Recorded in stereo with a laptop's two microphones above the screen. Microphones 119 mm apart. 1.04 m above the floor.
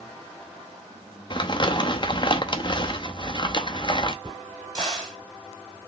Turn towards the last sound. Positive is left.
turn(degrees=-40)  # may be behind; listen again after turning